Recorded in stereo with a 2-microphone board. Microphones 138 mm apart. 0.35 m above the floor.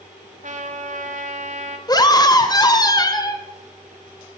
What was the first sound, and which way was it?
A trumpet, 60° right (ahead or behind).